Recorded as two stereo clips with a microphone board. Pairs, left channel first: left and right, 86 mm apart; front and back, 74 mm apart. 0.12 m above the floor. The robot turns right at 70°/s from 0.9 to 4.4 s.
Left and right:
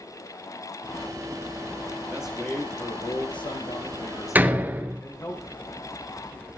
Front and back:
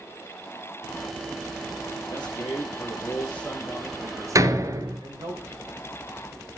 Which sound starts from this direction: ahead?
A man speaking, at 2.1 s.